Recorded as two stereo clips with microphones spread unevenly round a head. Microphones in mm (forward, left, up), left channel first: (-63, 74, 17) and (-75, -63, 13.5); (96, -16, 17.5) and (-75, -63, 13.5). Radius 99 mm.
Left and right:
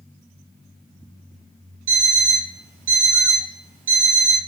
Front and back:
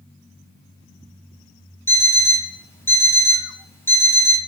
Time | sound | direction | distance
1.9 | an alarm clock | 60° right | 2 m